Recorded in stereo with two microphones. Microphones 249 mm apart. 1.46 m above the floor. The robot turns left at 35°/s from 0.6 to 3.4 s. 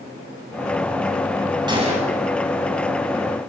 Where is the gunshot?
15° right (ahead or behind), 7 m; by 2.1 s 30° right (ahead or behind), 7 m.